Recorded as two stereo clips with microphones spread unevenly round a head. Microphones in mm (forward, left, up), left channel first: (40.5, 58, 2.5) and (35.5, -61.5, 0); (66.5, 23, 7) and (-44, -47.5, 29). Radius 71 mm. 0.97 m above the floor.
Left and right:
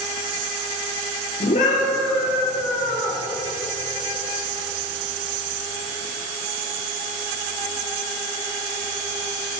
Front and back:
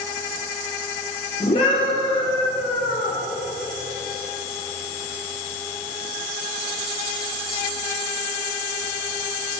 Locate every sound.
1.4 s a scream: 80° left, 3.5 m; by 3.2 s 70° left, 4 m